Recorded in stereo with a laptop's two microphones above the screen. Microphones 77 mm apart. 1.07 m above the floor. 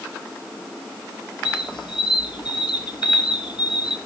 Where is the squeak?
75° left (ahead or behind), 1.2 m.